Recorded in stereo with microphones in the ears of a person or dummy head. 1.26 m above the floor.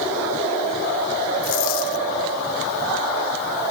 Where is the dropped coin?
75° left (ahead or behind).